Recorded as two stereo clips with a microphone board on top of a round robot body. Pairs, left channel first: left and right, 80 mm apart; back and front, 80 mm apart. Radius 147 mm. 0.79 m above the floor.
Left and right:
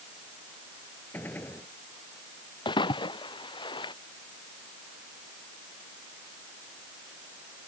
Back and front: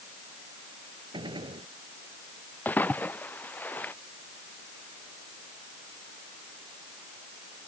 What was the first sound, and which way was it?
A gunshot, 20° left.